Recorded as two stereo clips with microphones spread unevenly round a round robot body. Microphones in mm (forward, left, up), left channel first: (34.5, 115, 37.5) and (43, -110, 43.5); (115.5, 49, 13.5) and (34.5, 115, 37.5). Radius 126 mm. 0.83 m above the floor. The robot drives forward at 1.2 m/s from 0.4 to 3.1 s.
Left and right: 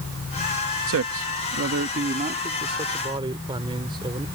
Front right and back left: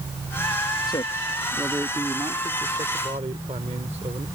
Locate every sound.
0.9 s a man speaking: 85° right; by 4.3 s 160° right